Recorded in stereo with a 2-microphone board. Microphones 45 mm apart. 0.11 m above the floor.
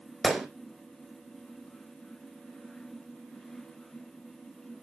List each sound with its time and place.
0.2 s a gunshot: centre (ahead or behind), 1.6 m